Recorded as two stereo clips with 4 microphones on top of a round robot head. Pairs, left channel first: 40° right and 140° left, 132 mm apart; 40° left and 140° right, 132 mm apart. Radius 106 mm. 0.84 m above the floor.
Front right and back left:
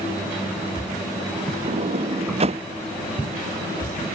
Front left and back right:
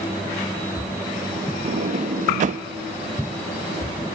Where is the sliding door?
175° right.